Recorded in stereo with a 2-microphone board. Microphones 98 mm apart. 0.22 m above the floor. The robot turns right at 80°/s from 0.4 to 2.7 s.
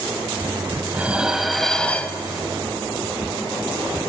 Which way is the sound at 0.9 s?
15° right (ahead or behind).